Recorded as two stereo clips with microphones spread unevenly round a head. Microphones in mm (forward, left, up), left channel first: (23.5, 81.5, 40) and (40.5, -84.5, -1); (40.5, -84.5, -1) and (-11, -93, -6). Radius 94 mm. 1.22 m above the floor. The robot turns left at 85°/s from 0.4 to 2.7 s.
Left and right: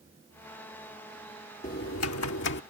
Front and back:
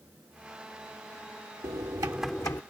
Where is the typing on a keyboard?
150° left; by 2.6 s 70° left.